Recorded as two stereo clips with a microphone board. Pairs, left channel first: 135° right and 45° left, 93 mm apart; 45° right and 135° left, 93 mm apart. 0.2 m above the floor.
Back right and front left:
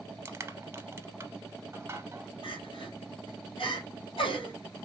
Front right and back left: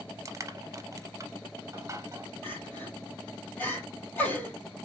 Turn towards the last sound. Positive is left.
turn(degrees=-115)